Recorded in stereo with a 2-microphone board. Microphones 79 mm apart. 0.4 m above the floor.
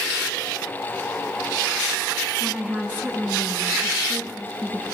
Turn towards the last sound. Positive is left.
turn(degrees=-20)  # may be behind; listen again after turning